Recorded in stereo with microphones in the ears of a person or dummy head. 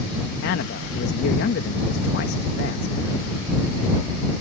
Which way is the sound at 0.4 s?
60° left (ahead or behind).